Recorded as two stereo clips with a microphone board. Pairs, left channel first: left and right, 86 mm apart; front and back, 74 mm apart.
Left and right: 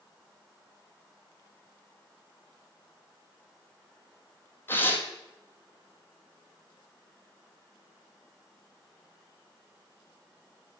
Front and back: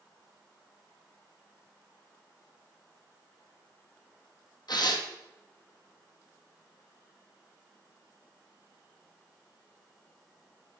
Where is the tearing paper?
25° left, 1.6 m.